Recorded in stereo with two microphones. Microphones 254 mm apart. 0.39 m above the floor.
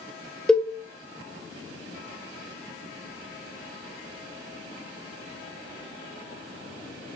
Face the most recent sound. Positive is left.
turn(degrees=0)  # may be behind; listen again after turning